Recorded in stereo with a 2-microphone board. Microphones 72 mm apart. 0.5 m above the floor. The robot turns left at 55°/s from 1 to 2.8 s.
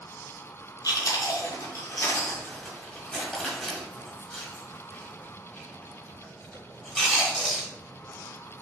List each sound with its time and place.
0.8 s chewing: 65° left (ahead or behind), 1.5 m; by 7.7 s 10° left (ahead or behind), 1.5 m